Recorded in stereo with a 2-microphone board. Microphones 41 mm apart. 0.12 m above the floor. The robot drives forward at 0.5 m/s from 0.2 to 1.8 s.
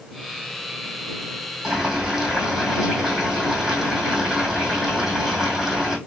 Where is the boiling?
10° right (ahead or behind), 2 m.